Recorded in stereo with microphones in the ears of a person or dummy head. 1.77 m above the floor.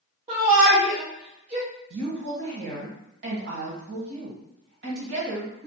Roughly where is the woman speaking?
Right.